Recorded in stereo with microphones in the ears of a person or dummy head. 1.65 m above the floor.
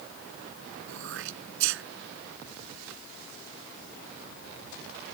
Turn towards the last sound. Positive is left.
turn(degrees=-70)  # may be behind; listen again after turning